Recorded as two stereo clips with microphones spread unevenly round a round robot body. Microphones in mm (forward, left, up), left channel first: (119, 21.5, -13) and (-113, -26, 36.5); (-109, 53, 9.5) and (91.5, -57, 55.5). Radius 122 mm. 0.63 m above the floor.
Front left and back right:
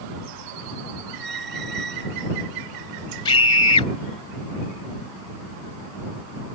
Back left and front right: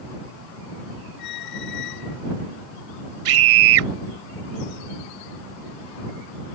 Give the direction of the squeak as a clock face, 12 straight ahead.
7 o'clock.